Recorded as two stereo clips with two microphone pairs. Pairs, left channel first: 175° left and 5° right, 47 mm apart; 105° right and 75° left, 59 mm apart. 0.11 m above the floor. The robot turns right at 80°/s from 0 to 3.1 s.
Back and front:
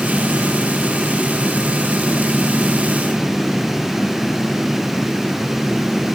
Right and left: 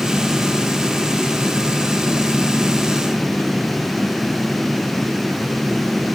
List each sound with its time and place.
Only background noise.